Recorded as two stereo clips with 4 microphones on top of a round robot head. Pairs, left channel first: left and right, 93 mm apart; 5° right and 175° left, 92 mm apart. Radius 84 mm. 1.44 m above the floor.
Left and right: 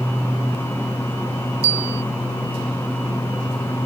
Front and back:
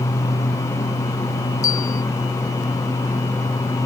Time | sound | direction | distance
1.6 | a bell | 70° right | ?